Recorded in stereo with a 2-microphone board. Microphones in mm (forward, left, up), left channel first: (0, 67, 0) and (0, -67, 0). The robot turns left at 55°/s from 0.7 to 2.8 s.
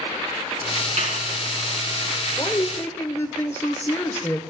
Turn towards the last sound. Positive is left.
turn(degrees=20)  # may be behind; listen again after turning